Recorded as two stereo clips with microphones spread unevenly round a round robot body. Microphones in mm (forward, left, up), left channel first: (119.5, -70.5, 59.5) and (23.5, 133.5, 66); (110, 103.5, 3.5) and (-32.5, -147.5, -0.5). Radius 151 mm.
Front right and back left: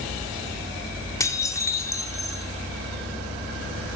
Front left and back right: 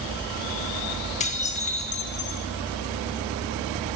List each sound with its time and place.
1.2 s dishes clattering: 5° left, 0.7 m